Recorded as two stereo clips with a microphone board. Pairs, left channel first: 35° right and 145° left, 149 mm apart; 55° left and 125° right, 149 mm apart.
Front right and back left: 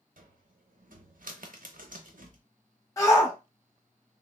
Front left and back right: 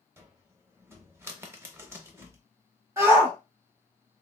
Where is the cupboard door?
165° left, 0.5 m.